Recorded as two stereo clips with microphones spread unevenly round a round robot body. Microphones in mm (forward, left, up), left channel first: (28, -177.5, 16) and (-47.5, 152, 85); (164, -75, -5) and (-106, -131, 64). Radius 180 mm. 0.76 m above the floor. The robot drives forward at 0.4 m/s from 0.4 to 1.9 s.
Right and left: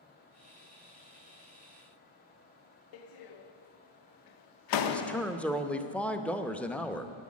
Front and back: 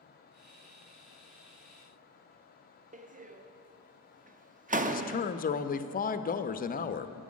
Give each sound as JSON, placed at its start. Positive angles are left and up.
{"t": 2.9, "sound": "a door slam", "azimuth_deg": -100, "distance_m": 0.7}
{"t": 4.9, "sound": "a man speaking", "azimuth_deg": -5, "distance_m": 0.6}